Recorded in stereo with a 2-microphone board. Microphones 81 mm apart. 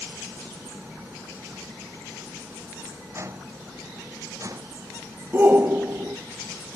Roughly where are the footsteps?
Right.